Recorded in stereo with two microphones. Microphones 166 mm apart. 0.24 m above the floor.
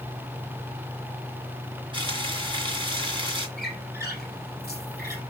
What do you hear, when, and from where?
1.9 s frying: 30° right (ahead or behind), 1.9 m
3.6 s a squeak: 70° right (ahead or behind), 3.5 m